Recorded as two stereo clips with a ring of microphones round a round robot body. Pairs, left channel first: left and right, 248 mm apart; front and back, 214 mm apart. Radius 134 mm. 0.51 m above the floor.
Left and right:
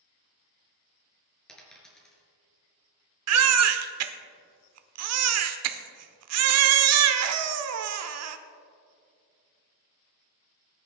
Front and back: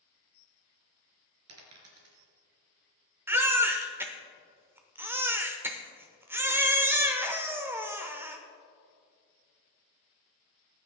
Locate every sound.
1.5 s a dropped coin: straight behind, 3 m
3.3 s a baby crying: 100° right, 0.9 m